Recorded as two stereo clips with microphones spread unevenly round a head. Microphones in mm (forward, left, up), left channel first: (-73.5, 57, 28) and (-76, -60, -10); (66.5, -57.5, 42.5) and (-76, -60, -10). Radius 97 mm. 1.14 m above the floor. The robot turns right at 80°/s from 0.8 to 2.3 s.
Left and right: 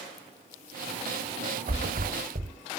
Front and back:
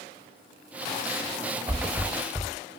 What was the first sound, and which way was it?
A thud, 105° right.